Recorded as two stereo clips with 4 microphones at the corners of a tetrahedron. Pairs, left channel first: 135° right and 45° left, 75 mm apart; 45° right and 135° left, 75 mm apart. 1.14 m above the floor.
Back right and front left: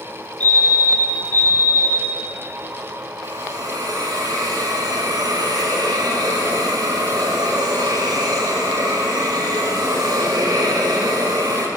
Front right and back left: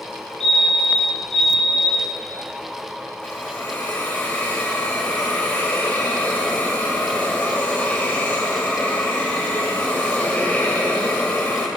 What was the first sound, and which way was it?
A fire alarm, 45° left.